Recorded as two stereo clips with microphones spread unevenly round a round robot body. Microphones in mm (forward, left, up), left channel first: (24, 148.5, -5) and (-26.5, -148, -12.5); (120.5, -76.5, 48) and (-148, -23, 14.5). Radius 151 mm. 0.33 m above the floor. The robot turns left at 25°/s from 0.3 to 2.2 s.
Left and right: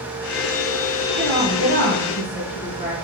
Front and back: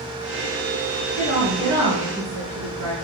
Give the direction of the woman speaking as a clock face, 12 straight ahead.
8 o'clock.